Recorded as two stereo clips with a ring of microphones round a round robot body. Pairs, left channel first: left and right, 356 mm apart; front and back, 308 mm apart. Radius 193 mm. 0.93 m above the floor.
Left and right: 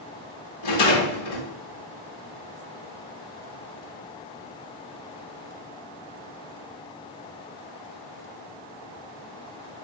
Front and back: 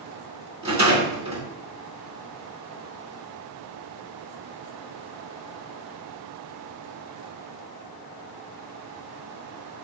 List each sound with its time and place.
0.6 s a rattle: 110° left, 2 m